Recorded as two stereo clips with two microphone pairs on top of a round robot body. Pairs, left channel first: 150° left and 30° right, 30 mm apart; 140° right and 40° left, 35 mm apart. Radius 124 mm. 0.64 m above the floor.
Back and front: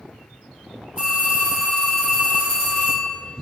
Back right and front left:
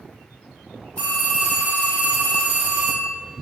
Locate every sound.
1.0 s a phone ringing: 90° right, 2.0 m